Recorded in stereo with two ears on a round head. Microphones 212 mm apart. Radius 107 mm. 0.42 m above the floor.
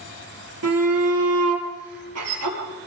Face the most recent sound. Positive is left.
turn(degrees=-70)  # may be behind; listen again after turning